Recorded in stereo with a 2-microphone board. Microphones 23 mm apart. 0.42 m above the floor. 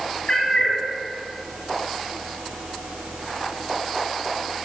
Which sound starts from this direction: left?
A cat meowing, at 0.3 s.